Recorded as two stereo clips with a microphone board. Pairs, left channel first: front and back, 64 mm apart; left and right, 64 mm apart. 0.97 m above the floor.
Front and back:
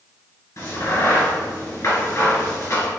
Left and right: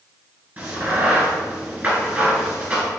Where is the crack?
25° right, 1.9 m.